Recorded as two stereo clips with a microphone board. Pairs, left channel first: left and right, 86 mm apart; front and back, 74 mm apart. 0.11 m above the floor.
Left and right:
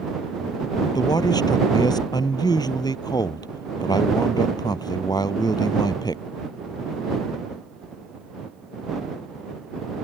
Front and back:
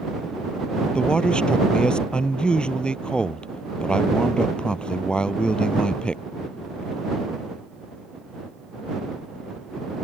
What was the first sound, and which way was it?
A man speaking, 75° left.